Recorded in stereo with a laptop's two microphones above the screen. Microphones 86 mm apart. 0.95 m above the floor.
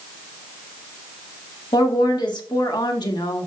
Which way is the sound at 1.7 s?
55° left (ahead or behind).